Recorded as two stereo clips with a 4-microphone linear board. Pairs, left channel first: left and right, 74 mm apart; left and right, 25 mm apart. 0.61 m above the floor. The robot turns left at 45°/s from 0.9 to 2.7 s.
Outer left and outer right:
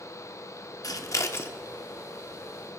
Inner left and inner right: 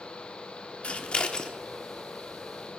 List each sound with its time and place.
0.8 s scissors: 50° left (ahead or behind), 0.8 m; by 1.5 s 30° left (ahead or behind), 0.8 m